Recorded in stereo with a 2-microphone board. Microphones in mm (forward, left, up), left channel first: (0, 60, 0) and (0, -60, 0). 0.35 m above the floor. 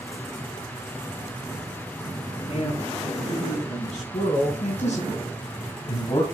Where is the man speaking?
55° left (ahead or behind), 6 m; by 6.2 s 35° left (ahead or behind), 2 m.